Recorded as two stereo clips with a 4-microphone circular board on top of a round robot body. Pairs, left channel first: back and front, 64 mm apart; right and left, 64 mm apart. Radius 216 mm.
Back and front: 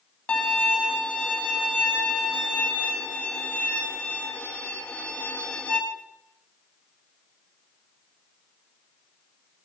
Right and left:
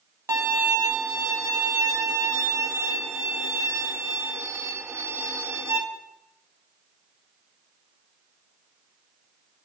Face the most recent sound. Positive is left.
turn(degrees=115)